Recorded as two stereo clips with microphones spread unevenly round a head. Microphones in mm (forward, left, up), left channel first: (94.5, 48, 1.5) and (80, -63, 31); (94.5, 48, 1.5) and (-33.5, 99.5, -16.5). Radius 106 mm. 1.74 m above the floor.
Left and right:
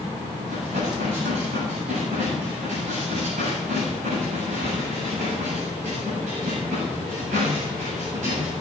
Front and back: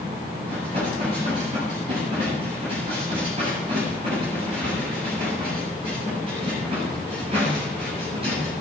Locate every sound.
0.5 s dishes clattering: 135° right, 8 m